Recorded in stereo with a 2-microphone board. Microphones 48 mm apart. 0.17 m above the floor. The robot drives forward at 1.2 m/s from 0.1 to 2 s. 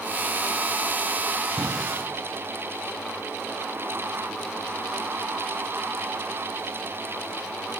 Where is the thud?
70° right (ahead or behind), 5 m; by 1.7 s 65° right (ahead or behind), 5 m.